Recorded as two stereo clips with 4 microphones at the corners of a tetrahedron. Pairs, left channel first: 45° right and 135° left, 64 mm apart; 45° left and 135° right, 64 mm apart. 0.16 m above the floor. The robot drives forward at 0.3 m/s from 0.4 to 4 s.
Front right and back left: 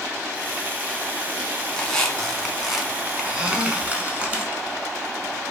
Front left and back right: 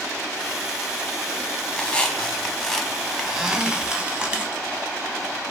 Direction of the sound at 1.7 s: 10° left.